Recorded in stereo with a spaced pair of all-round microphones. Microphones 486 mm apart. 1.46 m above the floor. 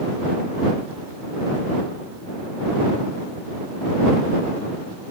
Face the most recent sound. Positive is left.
No sound to turn to.